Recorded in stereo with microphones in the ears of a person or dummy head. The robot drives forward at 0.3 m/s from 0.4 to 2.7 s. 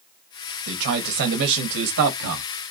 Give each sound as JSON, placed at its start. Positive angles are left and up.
{"t": 0.7, "sound": "a man speaking", "side_deg": -50, "distance_m": 1.1}